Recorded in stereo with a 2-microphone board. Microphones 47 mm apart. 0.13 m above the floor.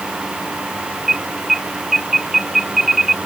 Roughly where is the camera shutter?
No camera shutter in this recording.